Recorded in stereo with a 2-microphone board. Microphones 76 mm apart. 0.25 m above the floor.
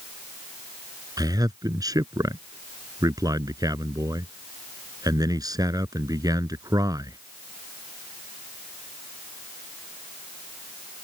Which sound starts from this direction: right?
A man speaking, at 1.2 s.